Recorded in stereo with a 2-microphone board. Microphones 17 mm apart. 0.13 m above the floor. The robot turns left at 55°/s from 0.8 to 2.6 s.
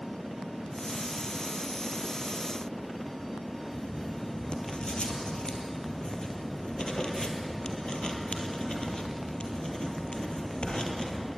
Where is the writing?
60° left (ahead or behind), 2.5 m.